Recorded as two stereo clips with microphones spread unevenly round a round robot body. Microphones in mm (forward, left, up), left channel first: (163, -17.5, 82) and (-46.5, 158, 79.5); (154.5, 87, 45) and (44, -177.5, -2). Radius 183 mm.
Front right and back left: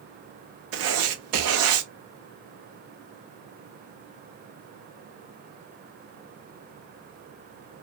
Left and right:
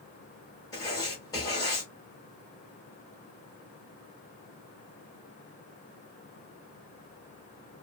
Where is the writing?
150° left, 0.5 m.